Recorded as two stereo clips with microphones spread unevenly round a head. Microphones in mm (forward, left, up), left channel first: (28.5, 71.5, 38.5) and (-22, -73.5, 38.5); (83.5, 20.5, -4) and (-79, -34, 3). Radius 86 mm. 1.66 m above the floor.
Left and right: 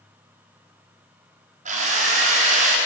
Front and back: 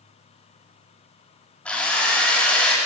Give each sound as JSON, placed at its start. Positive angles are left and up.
{"t": 1.6, "sound": "a drill", "azimuth_deg": -65, "distance_m": 5.5}